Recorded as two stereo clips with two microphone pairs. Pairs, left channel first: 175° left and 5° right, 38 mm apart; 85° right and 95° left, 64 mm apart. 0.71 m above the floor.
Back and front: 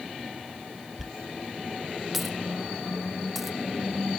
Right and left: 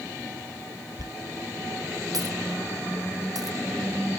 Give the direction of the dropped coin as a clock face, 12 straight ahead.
9 o'clock.